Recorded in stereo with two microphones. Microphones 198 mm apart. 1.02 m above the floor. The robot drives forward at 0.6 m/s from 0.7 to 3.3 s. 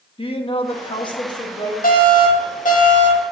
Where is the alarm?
50° left (ahead or behind), 2.5 m; by 3.2 s 40° left (ahead or behind), 2.5 m.